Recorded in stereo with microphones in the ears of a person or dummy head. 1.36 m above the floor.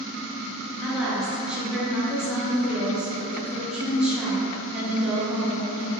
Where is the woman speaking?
10° right (ahead or behind), 0.5 m.